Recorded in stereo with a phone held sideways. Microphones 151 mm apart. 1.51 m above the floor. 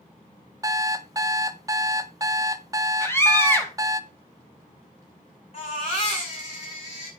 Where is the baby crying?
40° left (ahead or behind), 6.5 m.